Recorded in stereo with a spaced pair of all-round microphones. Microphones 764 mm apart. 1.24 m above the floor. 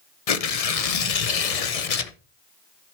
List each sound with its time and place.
0.3 s tearing paper: 50° left (ahead or behind), 0.8 m